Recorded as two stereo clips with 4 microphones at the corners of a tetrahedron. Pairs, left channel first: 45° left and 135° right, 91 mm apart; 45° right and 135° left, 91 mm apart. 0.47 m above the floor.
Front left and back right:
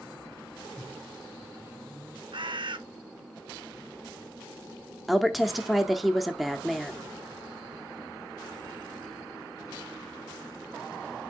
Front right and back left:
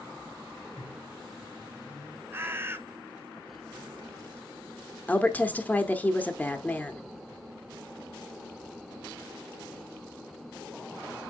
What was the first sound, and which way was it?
A microwave, 80° right.